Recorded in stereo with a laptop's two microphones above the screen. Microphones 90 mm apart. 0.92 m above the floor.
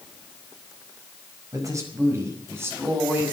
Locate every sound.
1.5 s a man speaking: 40° right (ahead or behind), 5 m; by 3.3 s 20° right (ahead or behind), 6.5 m